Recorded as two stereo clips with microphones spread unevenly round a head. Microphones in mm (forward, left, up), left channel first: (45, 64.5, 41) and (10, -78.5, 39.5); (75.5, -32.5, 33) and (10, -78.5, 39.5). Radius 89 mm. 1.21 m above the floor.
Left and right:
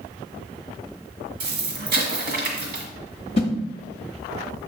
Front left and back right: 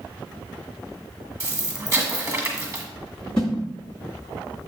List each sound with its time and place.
1.4 s an explosion: 90° right, 1.6 m
3.4 s a whoosh: 125° left, 0.9 m